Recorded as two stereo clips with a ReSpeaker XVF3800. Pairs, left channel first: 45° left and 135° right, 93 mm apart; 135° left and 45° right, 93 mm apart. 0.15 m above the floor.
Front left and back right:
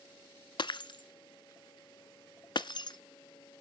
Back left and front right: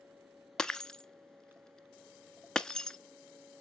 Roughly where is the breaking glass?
Ahead left.